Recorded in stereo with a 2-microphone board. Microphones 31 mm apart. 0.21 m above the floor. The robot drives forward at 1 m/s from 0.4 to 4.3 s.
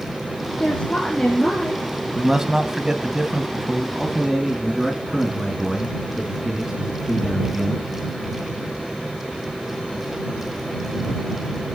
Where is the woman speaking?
35° left (ahead or behind), 3 m; by 1.9 s 25° left (ahead or behind), 4 m.